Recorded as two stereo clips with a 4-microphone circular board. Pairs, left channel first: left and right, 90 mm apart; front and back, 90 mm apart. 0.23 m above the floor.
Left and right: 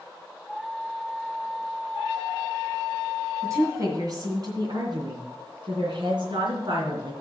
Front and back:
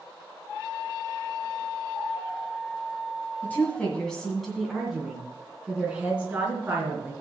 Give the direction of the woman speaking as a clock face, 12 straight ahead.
2 o'clock.